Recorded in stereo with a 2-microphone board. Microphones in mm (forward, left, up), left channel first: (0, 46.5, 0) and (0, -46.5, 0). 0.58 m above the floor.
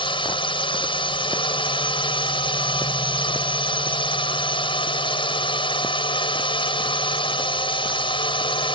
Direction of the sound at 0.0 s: 60° left (ahead or behind).